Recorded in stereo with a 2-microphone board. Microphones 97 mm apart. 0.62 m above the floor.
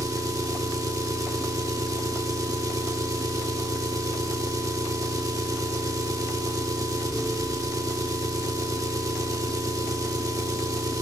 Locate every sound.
0.0 s an engine running: 35° right (ahead or behind), 0.8 m